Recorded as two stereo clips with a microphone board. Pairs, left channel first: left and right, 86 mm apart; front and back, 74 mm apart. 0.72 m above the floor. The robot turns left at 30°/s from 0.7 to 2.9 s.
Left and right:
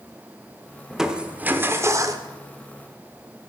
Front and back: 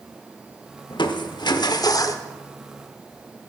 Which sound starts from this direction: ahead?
Crushing, at 0.9 s.